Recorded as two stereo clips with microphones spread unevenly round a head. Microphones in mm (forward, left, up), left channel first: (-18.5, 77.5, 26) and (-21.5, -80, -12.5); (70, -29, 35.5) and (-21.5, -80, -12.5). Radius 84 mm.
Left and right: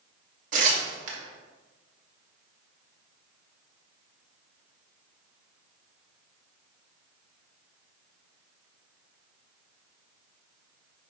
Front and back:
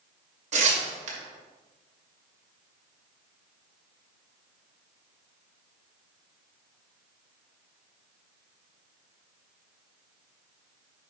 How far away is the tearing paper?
About 2 m.